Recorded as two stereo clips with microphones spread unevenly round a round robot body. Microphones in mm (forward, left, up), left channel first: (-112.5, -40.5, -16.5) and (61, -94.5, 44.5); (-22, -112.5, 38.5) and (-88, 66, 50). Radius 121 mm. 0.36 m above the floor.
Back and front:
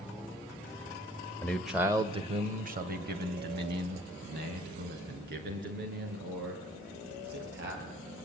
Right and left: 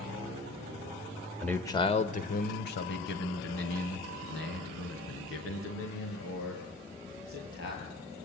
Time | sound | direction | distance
1.4 | a man speaking | 150° right | 1.3 m